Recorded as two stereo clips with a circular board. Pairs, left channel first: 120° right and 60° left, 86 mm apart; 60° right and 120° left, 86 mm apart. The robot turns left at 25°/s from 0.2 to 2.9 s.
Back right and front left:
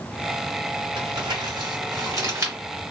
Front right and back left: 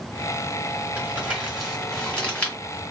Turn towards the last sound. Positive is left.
turn(degrees=0)